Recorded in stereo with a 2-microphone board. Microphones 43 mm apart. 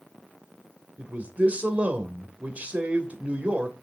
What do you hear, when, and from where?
1.0 s a man speaking: 30° right (ahead or behind), 2.5 m